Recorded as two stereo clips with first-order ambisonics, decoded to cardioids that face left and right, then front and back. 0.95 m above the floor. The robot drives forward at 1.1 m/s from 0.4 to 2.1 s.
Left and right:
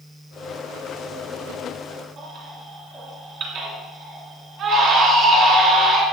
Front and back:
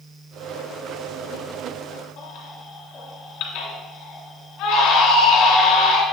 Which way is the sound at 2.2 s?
45° right.